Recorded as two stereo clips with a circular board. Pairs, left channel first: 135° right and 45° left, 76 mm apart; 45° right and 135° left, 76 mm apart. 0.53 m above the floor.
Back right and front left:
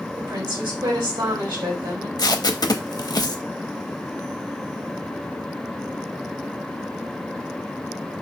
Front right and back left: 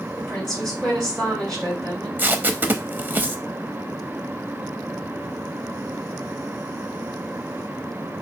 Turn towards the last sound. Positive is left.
turn(degrees=-160)